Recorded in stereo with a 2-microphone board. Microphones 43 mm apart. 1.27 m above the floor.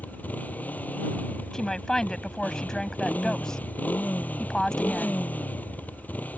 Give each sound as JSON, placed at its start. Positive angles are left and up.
{"t": 0.0, "sound": "a motorcycle", "side_deg": 40}
{"t": 1.5, "sound": "a woman speaking", "side_deg": 15}